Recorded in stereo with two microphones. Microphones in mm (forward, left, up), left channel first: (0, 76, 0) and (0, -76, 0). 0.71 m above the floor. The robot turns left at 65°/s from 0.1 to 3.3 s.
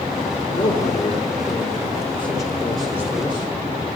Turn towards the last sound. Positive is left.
turn(degrees=-35)